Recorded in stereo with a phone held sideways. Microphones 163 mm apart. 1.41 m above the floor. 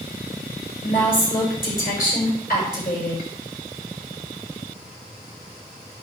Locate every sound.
0.8 s a woman speaking: 60° left (ahead or behind), 7 m